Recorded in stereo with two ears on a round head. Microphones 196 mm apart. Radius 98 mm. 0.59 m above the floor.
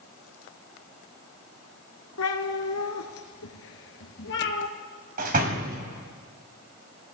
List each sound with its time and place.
2.2 s a cat meowing: 80° left, 1.8 m; by 4.7 s 50° left (ahead or behind), 2.5 m
5.2 s a door slam: 40° right (ahead or behind), 2 m